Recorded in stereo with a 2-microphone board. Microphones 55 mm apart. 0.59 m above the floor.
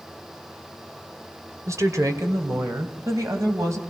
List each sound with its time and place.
1.7 s a woman speaking: 70° right (ahead or behind), 2 m; by 3.8 s 60° right (ahead or behind), 4 m